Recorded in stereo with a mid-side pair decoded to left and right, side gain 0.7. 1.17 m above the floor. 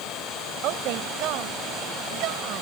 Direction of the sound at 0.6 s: 60° right.